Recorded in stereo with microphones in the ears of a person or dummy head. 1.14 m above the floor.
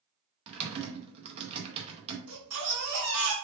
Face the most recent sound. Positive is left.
turn(degrees=-80)